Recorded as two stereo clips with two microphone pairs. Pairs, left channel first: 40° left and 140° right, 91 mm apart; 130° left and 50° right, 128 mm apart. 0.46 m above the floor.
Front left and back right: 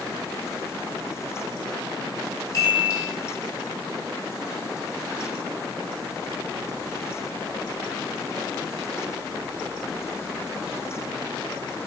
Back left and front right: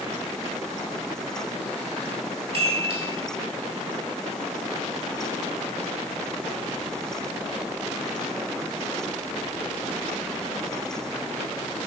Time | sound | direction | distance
2.5 | a chime | 10° right | 3.5 m